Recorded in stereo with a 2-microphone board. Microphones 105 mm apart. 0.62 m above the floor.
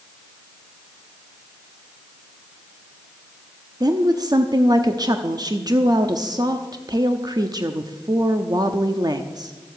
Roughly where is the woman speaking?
Right.